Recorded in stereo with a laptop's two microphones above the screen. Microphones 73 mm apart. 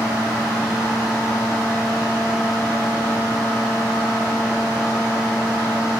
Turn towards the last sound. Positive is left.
turn(degrees=-20)  # may be behind; listen again after turning